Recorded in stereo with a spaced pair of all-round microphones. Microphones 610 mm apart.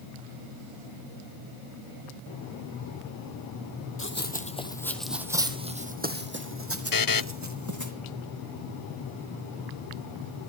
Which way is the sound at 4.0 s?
20° left (ahead or behind).